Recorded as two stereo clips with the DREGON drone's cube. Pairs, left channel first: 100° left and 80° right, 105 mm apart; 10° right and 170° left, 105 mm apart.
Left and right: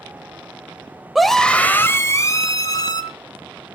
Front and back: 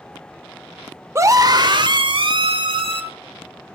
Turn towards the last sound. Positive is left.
turn(degrees=145)